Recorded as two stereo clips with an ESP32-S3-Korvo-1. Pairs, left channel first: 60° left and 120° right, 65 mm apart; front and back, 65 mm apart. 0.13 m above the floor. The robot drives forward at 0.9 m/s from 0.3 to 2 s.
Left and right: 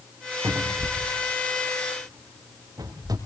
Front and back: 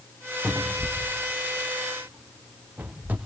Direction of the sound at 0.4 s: 85° right.